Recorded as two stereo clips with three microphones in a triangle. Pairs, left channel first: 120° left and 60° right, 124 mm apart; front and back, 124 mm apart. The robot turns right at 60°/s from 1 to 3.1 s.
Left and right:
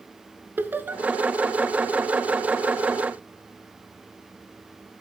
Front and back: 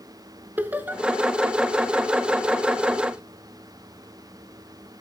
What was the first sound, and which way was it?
Laughter, 120° right.